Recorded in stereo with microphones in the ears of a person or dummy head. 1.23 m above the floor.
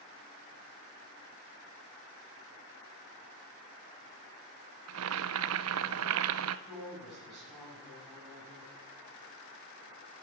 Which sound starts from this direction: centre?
A woman speaking, at 6.7 s.